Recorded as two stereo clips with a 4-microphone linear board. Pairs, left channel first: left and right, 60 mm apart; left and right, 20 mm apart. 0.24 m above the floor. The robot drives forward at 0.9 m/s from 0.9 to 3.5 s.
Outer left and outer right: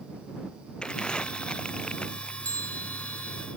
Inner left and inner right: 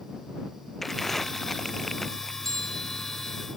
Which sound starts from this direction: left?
A bell, at 2.4 s.